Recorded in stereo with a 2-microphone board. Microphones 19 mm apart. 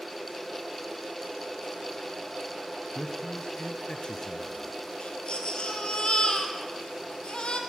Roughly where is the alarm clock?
No alarm clock in this recording.